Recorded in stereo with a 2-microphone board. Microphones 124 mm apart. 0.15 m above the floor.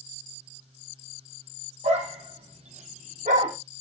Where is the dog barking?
60° right (ahead or behind), 2 m; by 3.5 s 80° right, 3 m.